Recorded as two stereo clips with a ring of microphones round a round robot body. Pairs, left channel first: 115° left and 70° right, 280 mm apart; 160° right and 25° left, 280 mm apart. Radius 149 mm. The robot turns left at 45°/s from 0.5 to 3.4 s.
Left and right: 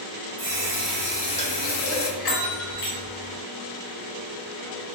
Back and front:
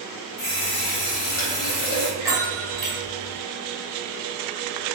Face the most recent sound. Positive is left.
turn(degrees=50)